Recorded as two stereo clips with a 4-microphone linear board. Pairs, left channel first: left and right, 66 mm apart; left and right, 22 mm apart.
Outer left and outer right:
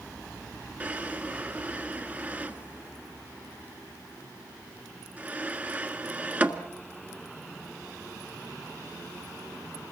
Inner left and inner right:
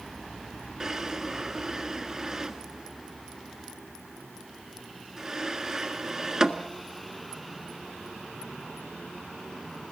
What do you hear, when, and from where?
0.8 s a drawer: 25° right (ahead or behind), 1.6 m